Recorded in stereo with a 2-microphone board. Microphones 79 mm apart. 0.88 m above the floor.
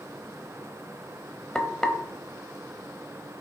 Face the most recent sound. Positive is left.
turn(degrees=5)  # may be behind; listen again after turning